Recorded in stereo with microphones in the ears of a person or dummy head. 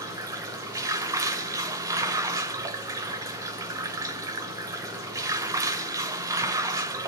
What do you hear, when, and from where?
0.0 s running water: 20° right (ahead or behind), 0.8 m